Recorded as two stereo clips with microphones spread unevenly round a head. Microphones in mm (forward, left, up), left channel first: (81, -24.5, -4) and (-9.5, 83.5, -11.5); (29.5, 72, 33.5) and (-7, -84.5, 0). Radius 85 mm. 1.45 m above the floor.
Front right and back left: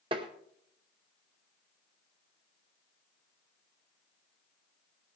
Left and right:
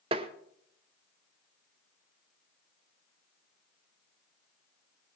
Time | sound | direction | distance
0.1 | tapping | 165° right | 0.8 m